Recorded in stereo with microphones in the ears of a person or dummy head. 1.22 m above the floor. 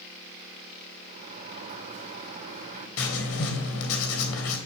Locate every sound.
1.1 s a sliding door: 40° right (ahead or behind), 3 m
3.0 s writing: 75° left (ahead or behind), 3 m